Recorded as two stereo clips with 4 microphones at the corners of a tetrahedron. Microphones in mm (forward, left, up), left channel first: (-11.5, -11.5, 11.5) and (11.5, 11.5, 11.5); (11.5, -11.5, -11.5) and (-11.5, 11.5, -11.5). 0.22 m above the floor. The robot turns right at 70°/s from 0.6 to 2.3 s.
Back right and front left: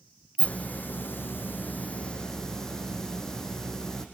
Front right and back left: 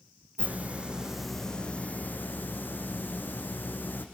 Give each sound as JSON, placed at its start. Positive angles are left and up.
{"t": 0.4, "sound": "a hiss", "azimuth_deg": 180, "distance_m": 4.0}